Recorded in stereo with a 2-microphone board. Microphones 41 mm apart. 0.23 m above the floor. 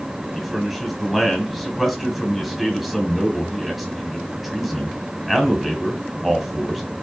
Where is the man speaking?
Centre (ahead or behind), 1.2 m.